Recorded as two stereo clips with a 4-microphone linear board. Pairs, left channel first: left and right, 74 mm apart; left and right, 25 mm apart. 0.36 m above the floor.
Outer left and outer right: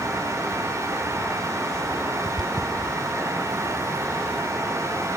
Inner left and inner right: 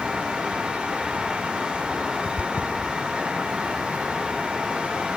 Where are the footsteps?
70° right (ahead or behind), 0.8 m; by 4.5 s 60° right (ahead or behind), 2.5 m.